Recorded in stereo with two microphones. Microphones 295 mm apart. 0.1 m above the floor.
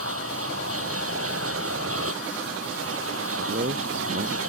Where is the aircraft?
50° right (ahead or behind).